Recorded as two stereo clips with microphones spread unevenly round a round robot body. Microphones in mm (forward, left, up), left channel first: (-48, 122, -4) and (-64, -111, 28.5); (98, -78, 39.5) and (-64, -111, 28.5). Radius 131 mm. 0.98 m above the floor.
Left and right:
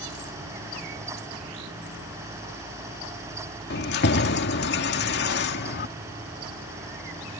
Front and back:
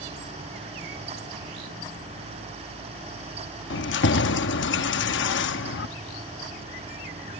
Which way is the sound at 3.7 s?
30° left.